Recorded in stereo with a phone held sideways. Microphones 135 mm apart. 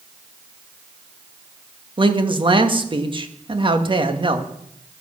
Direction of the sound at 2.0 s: 35° right (ahead or behind).